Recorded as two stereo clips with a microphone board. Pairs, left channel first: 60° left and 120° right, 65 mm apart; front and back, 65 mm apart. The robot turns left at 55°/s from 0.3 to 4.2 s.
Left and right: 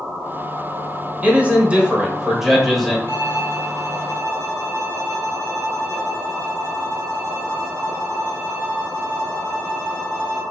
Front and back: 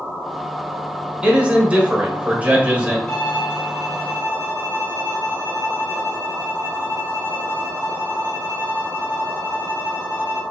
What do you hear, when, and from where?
1.2 s a man speaking: 125° right, 1.0 m; by 3.0 s 135° left, 1.0 m
3.1 s a violin: 75° left, 1.3 m; by 10.4 s 15° left, 1.3 m